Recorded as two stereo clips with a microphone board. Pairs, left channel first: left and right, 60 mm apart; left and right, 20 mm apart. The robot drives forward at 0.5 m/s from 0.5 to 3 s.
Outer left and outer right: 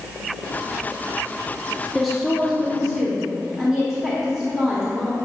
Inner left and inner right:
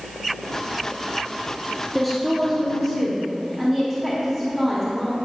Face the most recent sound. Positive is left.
turn(degrees=0)  # may be behind; listen again after turning